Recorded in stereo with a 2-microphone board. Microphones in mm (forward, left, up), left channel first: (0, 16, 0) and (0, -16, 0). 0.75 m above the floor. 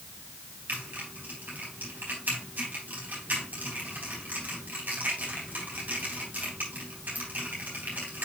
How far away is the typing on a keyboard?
About 4 m.